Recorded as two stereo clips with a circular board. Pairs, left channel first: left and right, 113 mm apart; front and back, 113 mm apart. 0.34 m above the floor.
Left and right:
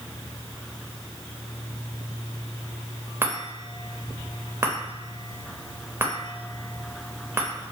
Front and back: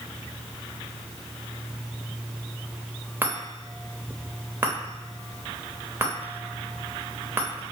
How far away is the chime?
About 0.7 m.